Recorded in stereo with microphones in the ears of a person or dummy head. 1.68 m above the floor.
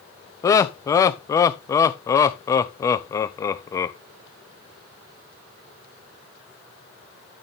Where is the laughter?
20° left (ahead or behind), 0.6 m.